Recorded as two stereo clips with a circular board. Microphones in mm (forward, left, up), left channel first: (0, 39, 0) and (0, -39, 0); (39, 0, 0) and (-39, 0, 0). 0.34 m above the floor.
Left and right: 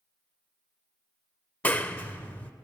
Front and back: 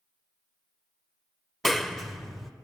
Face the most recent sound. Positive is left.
turn(degrees=85)